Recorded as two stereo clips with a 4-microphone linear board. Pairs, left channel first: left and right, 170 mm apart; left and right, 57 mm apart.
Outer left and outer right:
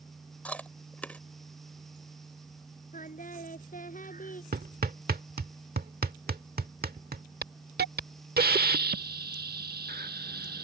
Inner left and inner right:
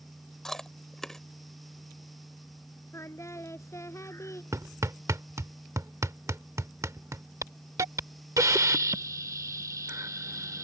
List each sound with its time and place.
0.5 s chewing: 10° left (ahead or behind)
2.9 s singing: 50° left (ahead or behind)
4.5 s hammering: 65° right (ahead or behind)
7.4 s a hiss: 70° right (ahead or behind)